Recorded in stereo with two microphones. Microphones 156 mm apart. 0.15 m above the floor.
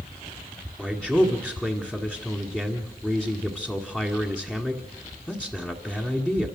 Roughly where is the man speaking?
Centre.